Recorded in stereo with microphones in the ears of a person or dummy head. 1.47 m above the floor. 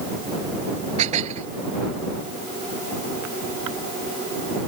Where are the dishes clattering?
45° right (ahead or behind).